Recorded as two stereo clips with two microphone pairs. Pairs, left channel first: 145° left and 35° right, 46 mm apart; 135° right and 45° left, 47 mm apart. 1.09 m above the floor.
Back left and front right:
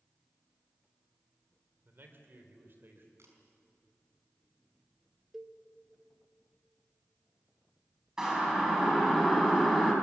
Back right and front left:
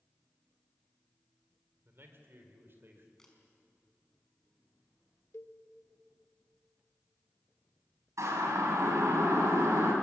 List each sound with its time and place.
1.9 s a man speaking: 5° left, 3.5 m
3.2 s a camera shutter: 55° right, 4.5 m
5.3 s a cowbell: 115° right, 1.7 m
8.2 s a siren: 45° left, 6 m; by 9.9 s 55° left, 6 m